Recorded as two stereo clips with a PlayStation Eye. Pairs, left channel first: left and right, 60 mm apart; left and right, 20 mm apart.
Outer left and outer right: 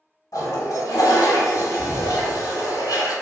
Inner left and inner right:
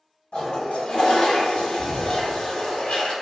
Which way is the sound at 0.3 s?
60° left (ahead or behind).